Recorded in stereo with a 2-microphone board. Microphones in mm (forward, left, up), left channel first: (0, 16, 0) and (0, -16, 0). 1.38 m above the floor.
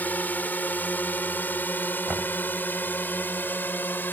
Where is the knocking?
40° right (ahead or behind).